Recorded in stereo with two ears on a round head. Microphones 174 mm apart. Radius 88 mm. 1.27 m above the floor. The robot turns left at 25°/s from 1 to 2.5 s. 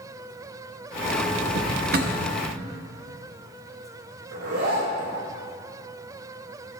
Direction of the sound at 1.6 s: 60° right (ahead or behind).